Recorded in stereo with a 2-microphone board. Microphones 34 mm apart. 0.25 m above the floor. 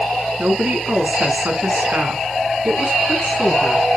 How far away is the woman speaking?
About 3 m.